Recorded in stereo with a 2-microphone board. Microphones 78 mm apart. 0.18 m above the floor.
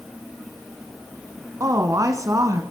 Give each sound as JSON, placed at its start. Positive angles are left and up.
{"t": 1.6, "sound": "a woman speaking", "side_deg": -45, "distance_m": 1.6}